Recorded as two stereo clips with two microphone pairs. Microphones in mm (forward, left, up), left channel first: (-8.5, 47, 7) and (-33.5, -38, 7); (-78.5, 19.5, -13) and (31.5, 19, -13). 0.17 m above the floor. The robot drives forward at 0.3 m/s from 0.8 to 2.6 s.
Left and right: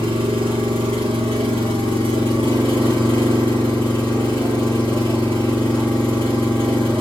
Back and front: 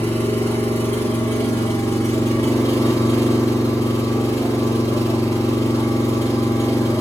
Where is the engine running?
110° right, 3.5 m; by 7.0 s 115° right, 3.5 m.